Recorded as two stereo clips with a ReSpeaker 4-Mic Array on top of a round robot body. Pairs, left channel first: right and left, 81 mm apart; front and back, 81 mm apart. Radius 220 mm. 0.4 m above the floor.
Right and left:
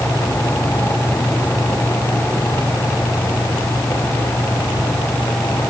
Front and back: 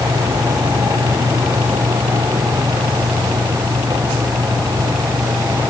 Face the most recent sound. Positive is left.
No sound to turn to.